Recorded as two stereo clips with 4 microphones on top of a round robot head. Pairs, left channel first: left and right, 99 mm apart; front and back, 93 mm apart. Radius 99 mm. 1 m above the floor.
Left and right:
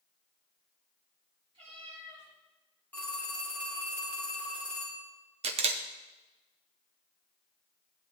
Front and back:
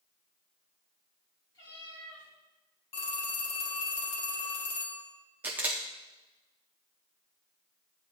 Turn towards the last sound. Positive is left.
turn(degrees=-105)